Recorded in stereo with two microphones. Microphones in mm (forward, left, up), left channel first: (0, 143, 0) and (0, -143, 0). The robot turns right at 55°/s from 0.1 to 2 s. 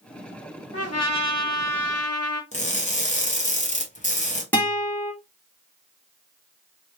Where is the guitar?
5° left (ahead or behind), 1.6 m.